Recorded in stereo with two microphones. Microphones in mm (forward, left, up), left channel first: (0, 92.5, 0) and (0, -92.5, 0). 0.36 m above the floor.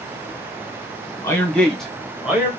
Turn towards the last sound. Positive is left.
turn(degrees=-10)  # may be behind; listen again after turning